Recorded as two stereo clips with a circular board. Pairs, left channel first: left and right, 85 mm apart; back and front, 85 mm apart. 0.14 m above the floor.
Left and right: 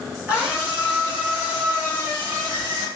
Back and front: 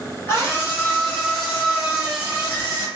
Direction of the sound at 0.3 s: 155° right.